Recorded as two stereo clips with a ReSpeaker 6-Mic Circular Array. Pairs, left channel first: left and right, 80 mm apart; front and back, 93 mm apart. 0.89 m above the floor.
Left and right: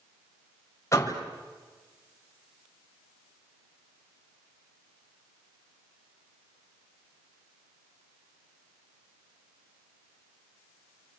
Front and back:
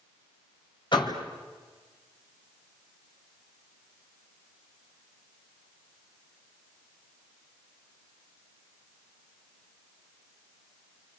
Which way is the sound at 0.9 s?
35° left.